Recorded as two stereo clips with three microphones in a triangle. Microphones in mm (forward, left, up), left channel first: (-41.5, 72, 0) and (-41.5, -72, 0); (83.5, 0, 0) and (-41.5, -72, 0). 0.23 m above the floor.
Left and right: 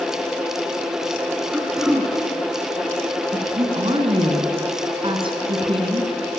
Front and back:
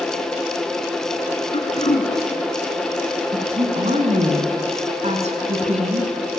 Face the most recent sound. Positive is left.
turn(degrees=-135)